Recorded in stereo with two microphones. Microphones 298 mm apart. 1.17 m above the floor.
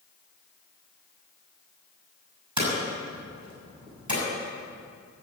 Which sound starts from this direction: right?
Hammering, at 2.6 s.